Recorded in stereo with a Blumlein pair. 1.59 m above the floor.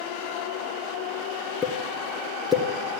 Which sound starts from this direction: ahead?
A pop, at 1.6 s.